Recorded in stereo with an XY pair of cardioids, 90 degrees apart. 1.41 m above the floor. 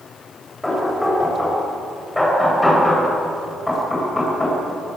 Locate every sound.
0.6 s knocking: 15° left, 7.5 m